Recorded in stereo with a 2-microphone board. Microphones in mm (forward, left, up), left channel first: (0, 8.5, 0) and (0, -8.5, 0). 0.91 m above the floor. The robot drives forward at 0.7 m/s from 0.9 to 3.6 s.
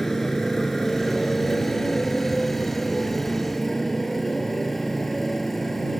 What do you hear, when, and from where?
0.0 s a motorcycle: 25° left (ahead or behind); by 6.0 s 20° left (ahead or behind)